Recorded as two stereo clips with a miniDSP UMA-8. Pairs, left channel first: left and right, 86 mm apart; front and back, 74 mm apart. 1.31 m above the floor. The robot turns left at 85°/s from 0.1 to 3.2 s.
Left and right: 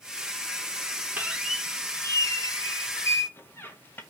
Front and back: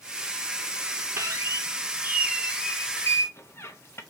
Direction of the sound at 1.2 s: 150° right.